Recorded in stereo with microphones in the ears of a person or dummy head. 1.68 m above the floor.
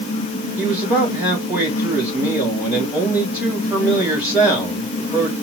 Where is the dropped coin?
No dropped coin in this recording.